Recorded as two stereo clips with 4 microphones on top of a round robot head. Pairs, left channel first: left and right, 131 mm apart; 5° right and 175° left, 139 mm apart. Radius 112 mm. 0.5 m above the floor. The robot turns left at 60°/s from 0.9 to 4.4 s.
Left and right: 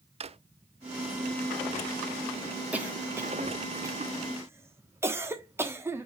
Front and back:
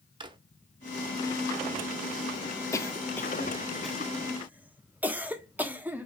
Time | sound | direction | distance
0.2 | a drawer | 130° right | 0.8 m
2.7 | a cough | 25° right | 1.2 m